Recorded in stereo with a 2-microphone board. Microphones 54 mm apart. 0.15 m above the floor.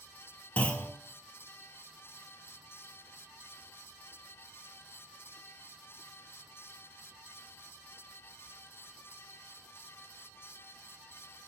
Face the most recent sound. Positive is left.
turn(degrees=25)  # may be behind; listen again after turning